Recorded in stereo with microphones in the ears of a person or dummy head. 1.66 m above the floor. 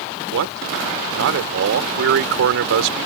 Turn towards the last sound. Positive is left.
turn(degrees=-65)  # may be behind; listen again after turning